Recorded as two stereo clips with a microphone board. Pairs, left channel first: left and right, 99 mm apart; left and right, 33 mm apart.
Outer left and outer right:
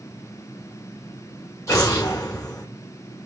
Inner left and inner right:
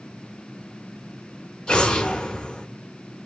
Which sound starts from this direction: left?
An explosion, at 1.7 s.